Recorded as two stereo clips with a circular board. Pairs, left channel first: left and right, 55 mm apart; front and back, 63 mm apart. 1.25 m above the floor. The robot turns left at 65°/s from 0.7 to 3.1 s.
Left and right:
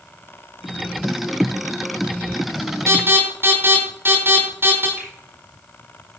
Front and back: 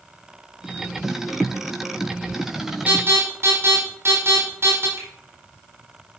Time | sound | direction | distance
2.9 | an alarm | 120° right | 5 m
5.0 | a finger snap | 155° right | 4 m